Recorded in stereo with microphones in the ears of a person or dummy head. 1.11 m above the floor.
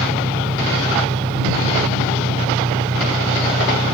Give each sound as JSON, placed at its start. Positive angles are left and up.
{"t": 0.0, "sound": "an engine running", "side_deg": -20}